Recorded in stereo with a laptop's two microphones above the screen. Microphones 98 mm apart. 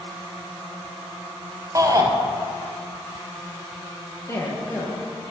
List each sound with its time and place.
1.8 s a shout: 30° right (ahead or behind), 0.5 m
4.3 s a woman speaking: 25° left (ahead or behind), 1.0 m